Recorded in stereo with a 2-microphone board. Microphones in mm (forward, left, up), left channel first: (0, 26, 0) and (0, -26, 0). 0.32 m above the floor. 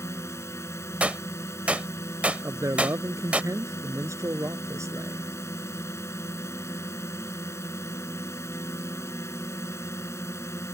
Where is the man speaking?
75° right (ahead or behind).